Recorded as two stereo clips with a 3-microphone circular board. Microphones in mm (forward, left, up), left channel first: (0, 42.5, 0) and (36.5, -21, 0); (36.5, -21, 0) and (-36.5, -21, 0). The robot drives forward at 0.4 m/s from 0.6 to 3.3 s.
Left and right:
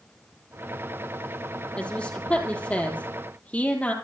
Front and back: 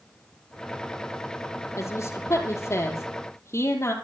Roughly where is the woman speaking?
Ahead left.